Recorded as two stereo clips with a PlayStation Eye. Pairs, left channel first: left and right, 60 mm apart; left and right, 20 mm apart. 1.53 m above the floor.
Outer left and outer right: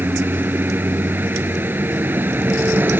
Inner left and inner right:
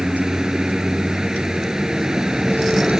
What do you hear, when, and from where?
0.0 s a vehicle: 35° right (ahead or behind)